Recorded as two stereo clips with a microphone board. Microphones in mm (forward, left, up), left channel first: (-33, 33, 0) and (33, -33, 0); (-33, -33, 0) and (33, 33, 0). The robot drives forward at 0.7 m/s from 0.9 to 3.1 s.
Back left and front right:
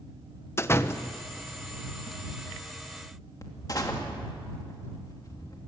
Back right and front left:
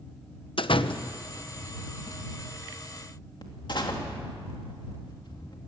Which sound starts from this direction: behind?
A door slam, at 0.6 s.